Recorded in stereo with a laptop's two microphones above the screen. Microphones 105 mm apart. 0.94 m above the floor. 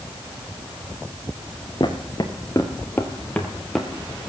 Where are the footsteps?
45° left (ahead or behind), 1.5 m; by 3.9 s centre (ahead or behind), 1.5 m.